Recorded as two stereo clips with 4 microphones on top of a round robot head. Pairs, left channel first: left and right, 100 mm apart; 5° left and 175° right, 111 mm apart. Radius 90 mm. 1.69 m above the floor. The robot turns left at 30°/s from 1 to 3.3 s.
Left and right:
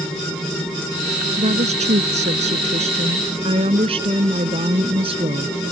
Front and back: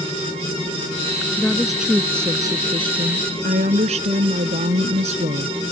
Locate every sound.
1.4 s a woman speaking: 75° right; by 5.6 s 135° right